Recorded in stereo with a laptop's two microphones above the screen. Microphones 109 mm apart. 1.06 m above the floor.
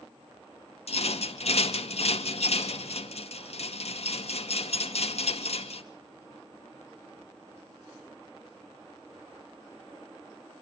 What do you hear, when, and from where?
0.9 s a rattle: 70° left (ahead or behind), 2 m